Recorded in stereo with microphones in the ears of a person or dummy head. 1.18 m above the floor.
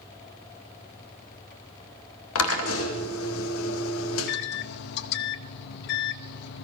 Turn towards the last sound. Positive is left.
turn(degrees=60)  # may be behind; listen again after turning